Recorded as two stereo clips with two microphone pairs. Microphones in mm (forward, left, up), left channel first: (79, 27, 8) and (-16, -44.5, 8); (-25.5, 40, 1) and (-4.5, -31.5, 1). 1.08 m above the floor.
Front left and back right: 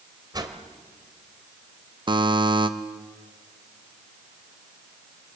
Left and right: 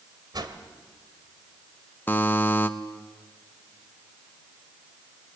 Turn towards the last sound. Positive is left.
turn(degrees=170)